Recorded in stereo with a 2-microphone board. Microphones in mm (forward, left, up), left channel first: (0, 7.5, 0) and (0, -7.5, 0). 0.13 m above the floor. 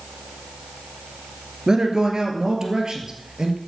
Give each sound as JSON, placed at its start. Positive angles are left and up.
{"t": 1.7, "sound": "a man speaking", "side_deg": -50, "distance_m": 1.7}